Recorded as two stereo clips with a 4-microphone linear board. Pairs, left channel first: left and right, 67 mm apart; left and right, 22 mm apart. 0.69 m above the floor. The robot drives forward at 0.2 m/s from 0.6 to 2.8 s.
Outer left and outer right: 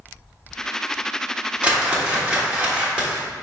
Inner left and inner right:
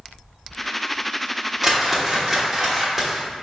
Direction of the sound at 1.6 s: 15° right (ahead or behind).